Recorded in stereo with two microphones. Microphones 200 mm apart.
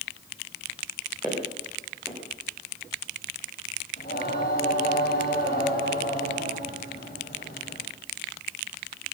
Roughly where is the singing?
Left.